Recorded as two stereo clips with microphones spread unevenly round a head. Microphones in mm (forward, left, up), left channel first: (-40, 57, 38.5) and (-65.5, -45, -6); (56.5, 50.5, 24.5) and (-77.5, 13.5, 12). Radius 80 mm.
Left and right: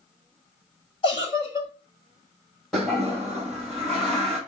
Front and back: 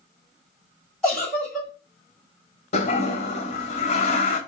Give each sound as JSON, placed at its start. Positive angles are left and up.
{"t": 1.0, "sound": "a giggle", "azimuth_deg": 100, "distance_m": 2.0}
{"t": 2.7, "sound": "a toilet flushing", "azimuth_deg": 15, "distance_m": 1.1}